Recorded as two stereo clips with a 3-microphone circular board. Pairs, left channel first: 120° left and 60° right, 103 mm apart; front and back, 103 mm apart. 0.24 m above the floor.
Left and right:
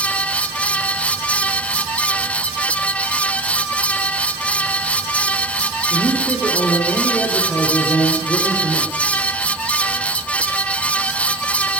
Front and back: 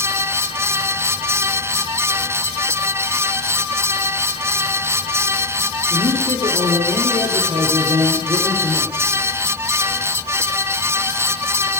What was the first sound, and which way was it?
A man speaking, 170° right.